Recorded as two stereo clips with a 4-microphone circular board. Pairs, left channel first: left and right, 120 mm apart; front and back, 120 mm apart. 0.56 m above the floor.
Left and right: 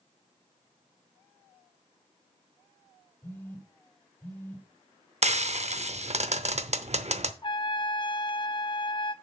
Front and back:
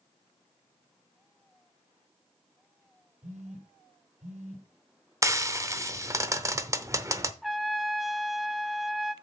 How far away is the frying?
About 0.7 m.